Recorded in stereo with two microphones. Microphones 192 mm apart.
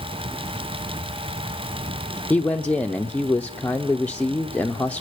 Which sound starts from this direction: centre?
A man speaking, at 2.3 s.